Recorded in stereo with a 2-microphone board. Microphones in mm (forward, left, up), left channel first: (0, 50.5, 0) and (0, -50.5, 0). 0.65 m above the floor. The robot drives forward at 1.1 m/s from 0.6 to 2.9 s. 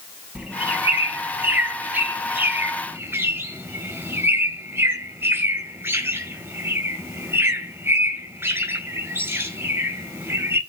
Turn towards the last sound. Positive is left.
turn(degrees=-25)  # may be behind; listen again after turning